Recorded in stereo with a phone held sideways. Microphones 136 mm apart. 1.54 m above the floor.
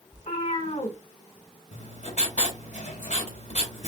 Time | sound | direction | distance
0.1 | a cat meowing | 60° left (ahead or behind) | 2.5 m
1.7 | writing | 65° left (ahead or behind) | 2.5 m